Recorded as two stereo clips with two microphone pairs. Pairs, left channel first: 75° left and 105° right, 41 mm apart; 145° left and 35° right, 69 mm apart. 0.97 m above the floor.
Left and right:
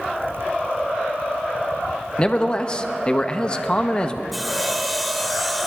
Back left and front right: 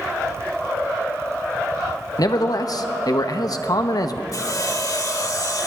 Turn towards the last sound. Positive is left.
turn(degrees=165)